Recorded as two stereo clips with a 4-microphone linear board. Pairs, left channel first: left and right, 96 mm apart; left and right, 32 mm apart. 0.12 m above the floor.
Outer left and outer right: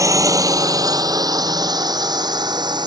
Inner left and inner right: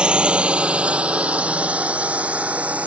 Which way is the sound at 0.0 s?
35° right (ahead or behind).